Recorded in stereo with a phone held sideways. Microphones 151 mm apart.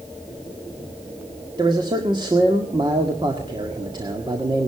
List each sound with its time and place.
1.6 s a man speaking: 30° right (ahead or behind), 1.8 m